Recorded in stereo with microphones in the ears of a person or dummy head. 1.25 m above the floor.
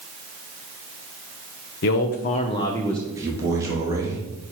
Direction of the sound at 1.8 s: 55° left (ahead or behind).